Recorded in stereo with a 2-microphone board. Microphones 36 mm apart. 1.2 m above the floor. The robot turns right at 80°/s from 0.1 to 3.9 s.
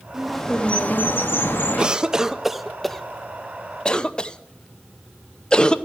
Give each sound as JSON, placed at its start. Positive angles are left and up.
{"t": 0.1, "sound": "a bird", "azimuth_deg": -10, "distance_m": 1.1}
{"t": 1.8, "sound": "a cough", "side_deg": -25, "distance_m": 0.6}